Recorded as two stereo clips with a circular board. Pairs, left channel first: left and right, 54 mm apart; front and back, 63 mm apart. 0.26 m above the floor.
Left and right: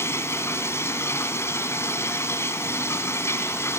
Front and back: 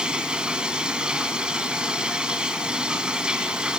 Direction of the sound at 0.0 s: 105° left.